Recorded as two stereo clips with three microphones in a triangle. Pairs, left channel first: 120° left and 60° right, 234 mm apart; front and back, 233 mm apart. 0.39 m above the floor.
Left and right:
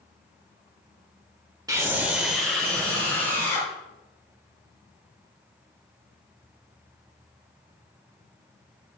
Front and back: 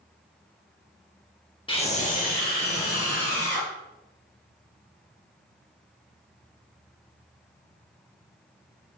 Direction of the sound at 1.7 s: 10° right.